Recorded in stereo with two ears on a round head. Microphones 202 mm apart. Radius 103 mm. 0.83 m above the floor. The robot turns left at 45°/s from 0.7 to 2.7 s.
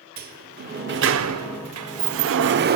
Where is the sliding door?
40° right, 0.9 m; by 2.8 s 130° right, 0.9 m.